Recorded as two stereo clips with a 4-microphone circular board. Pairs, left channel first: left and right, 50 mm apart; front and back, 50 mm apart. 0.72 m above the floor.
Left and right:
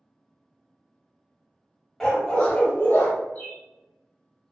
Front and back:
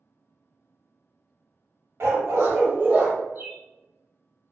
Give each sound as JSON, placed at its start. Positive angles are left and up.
{"t": 2.0, "sound": "a dog barking", "azimuth_deg": 170, "distance_m": 1.0}
{"t": 3.4, "sound": "a bird", "azimuth_deg": 140, "distance_m": 1.0}